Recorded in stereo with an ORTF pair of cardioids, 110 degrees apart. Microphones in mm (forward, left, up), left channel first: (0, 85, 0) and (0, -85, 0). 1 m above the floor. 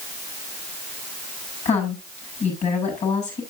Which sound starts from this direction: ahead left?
A woman speaking, at 1.6 s.